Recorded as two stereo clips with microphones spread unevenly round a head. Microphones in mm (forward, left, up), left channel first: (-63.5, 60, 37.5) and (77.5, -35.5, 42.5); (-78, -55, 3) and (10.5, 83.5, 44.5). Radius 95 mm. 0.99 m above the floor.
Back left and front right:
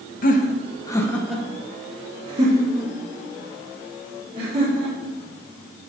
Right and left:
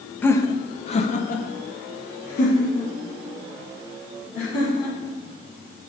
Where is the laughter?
170° left, 1.1 m; by 5.2 s 80° right, 4.5 m.